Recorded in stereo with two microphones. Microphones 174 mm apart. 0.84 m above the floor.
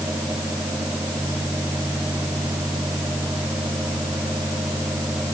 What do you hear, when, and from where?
Only background noise.